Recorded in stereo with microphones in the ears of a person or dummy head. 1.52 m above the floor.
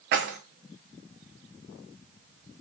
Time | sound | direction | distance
0.1 | keys jangling | 50° right (ahead or behind) | 0.7 m